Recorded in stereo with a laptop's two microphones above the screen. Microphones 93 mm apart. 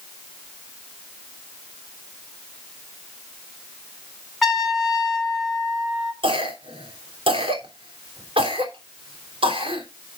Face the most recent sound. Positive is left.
turn(degrees=-75)  # may be behind; listen again after turning